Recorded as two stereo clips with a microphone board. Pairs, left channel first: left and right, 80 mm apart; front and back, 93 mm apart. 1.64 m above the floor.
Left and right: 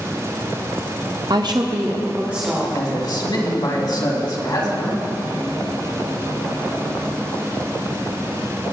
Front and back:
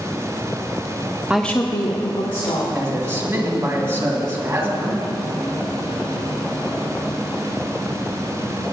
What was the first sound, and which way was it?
A woman speaking, 105° right.